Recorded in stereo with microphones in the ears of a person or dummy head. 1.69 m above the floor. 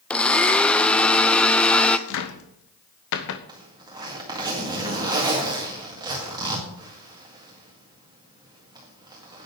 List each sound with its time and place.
0.1 s a blender: 10° left (ahead or behind), 0.6 m
2.1 s a cupboard door: 65° left (ahead or behind), 0.8 m
3.5 s a zipper: 20° right (ahead or behind), 1.9 m